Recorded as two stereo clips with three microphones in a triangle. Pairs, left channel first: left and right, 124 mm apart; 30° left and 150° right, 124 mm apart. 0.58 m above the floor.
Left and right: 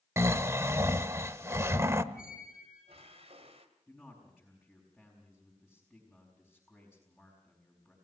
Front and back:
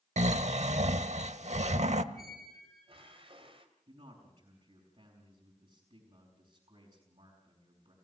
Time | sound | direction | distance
0.2 | snoring | 160° right | 0.8 m
2.1 | a squeak | 115° right | 2 m
3.9 | a man speaking | 175° right | 4.5 m